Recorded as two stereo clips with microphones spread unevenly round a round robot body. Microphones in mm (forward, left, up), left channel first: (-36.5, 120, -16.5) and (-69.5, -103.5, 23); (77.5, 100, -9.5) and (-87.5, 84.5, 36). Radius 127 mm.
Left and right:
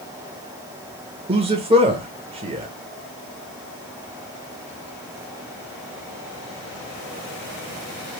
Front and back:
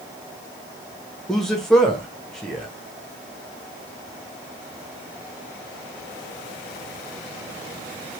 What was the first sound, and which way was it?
A man speaking, 40° right.